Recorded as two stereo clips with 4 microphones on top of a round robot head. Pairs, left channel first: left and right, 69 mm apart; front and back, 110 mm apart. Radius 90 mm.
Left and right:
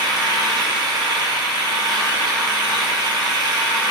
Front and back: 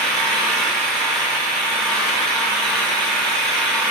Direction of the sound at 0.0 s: 85° right.